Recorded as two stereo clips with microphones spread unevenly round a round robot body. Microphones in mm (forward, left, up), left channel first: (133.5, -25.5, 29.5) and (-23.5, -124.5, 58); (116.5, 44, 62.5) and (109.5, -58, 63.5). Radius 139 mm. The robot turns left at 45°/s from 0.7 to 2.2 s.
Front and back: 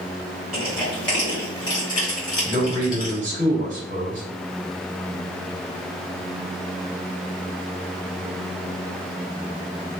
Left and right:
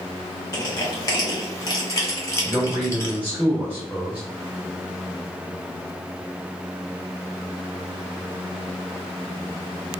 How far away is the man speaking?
About 1.4 m.